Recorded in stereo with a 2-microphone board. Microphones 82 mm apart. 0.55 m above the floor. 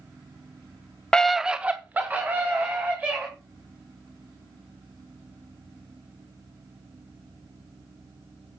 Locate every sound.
1.1 s a scream: 10° left (ahead or behind), 0.6 m; by 3.3 s 25° right (ahead or behind), 3 m